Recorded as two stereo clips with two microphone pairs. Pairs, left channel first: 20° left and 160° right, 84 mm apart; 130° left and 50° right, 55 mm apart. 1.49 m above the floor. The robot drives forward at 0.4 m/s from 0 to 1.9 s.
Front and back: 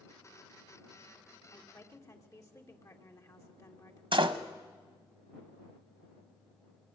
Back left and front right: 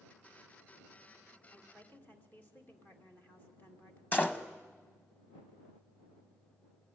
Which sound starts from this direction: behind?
A door slam, at 4.1 s.